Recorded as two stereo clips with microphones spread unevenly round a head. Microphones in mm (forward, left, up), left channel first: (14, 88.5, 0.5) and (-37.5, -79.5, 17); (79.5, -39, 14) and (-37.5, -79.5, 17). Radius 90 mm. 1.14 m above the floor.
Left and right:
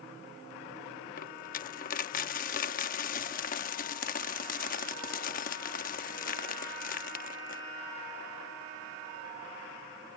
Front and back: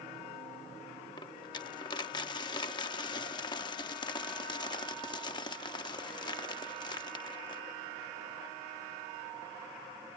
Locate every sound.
1.2 s a dropped coin: 60° left